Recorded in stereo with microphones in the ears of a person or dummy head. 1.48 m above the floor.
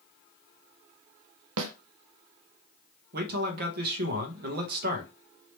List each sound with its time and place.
1.6 s a snare drum: 75° right (ahead or behind), 0.6 m
3.1 s a man speaking: 55° right (ahead or behind), 1.1 m